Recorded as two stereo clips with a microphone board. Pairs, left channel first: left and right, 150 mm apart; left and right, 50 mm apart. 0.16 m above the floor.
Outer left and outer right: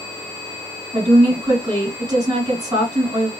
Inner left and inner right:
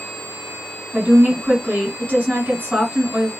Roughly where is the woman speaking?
Right.